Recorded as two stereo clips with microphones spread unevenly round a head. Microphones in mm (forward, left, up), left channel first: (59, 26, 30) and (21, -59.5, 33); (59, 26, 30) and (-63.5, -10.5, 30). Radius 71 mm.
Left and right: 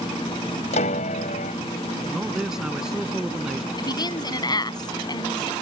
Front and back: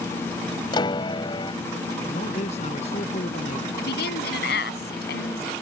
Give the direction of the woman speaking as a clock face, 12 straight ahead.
11 o'clock.